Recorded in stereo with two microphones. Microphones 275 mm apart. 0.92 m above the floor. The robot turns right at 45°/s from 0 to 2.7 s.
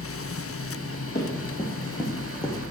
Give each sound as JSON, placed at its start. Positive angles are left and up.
{"t": 1.1, "sound": "running footsteps", "side_deg": 35, "distance_m": 2.5}